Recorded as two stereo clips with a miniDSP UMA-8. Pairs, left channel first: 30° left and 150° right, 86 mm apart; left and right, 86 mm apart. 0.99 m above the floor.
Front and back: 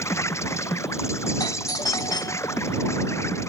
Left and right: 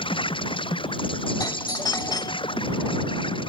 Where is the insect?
85° left.